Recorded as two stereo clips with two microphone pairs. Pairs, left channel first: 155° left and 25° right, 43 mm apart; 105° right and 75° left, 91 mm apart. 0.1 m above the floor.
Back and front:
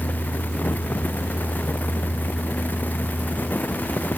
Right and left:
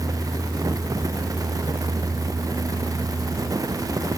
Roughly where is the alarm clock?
No alarm clock in this recording.